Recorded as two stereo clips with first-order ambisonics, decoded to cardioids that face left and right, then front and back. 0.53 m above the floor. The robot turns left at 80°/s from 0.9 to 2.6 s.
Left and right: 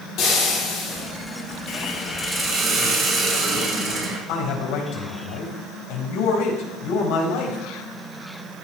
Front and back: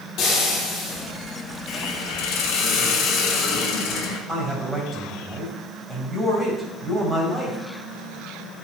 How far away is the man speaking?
About 4 m.